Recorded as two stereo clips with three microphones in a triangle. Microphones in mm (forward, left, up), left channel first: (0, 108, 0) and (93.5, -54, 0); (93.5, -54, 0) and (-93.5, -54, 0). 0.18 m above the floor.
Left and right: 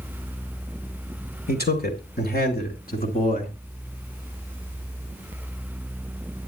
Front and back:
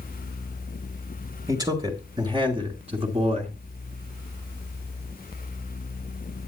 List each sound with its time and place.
1.5 s a man speaking: 115° left, 3 m; by 3.5 s 140° left, 2.5 m